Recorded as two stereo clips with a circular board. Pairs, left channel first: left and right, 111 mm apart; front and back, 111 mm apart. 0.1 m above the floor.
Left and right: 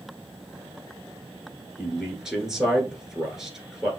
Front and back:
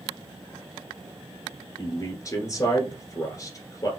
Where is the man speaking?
10° right, 1.5 m.